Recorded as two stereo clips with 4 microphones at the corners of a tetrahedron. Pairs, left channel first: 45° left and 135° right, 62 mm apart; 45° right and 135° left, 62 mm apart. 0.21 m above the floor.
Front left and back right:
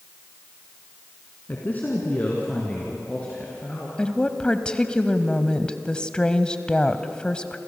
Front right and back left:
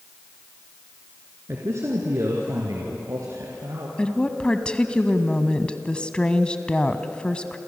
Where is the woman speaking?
Straight ahead, 1.1 m.